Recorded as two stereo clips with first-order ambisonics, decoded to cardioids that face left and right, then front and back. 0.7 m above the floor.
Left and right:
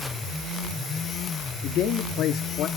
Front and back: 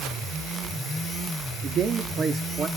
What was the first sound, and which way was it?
A man speaking, 125° left.